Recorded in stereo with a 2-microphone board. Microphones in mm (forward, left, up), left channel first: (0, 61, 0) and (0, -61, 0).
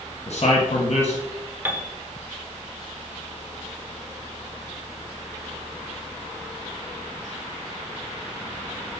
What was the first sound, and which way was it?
A man speaking, 60° left (ahead or behind).